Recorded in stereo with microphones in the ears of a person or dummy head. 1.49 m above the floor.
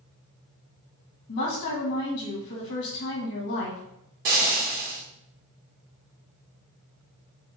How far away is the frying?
About 1.3 m.